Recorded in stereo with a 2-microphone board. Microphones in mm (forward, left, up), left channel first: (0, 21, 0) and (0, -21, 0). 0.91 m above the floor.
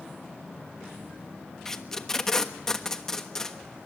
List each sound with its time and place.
1.6 s tape being pulled: 15° left (ahead or behind), 1.3 m